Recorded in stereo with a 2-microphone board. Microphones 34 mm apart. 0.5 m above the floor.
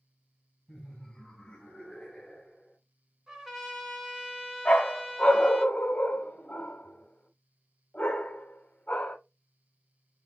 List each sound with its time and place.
0.7 s laughter: 15° left (ahead or behind), 3 m; by 2.8 s 20° left (ahead or behind), 2 m
3.3 s a trumpet: 15° right (ahead or behind), 1.5 m
4.7 s a dog barking: 40° left (ahead or behind), 0.9 m